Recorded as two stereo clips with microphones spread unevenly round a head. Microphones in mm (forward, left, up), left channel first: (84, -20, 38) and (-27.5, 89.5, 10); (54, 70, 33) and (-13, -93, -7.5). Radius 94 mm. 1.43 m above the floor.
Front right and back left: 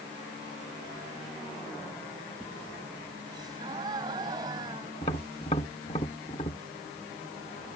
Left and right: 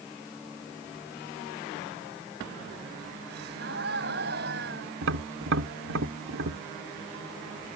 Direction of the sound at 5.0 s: 100° right.